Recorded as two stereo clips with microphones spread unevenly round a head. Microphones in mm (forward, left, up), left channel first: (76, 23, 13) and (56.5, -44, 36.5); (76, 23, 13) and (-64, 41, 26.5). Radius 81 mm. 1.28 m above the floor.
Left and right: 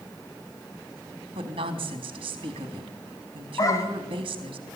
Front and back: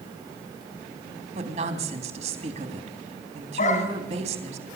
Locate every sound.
1.4 s a woman speaking: 135° right, 3 m
3.6 s a dog barking: 30° left, 3.5 m